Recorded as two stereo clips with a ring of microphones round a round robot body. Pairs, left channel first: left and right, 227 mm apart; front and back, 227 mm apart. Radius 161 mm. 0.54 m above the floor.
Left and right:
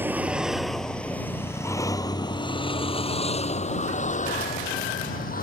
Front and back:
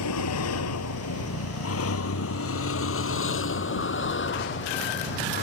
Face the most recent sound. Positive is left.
turn(degrees=40)